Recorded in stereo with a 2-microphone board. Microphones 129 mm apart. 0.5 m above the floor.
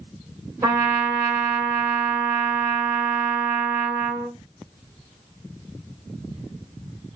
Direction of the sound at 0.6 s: 25° right (ahead or behind).